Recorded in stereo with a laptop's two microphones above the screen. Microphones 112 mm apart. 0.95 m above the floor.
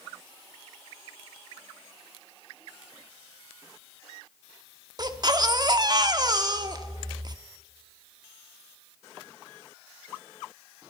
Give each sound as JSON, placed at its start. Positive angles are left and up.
{"t": 5.0, "sound": "a baby crying", "side_deg": -40, "distance_m": 0.8}